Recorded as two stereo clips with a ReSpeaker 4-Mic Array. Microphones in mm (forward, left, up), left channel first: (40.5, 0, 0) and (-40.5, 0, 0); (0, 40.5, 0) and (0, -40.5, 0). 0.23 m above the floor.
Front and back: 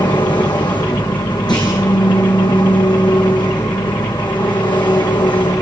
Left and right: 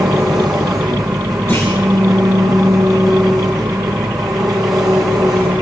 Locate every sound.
0.0 s an engine running: 5° right, 6 m
1.5 s a clunk: 30° left, 8.5 m